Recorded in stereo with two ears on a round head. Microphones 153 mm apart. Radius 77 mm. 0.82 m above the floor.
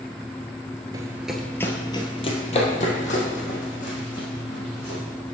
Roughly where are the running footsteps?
Right.